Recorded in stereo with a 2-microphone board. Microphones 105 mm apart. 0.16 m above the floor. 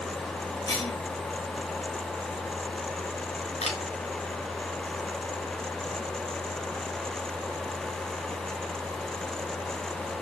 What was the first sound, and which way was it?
A cough, 35° left (ahead or behind).